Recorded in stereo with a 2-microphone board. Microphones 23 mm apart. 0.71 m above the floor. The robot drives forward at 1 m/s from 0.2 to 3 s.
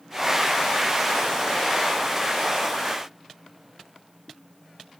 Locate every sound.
Only background noise.